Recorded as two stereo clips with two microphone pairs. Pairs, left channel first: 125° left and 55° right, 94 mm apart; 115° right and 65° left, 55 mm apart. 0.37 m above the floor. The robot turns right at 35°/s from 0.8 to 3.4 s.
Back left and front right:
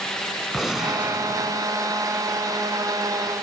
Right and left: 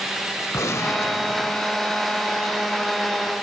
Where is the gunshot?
145° right, 0.7 m; by 1.7 s 110° right, 0.7 m.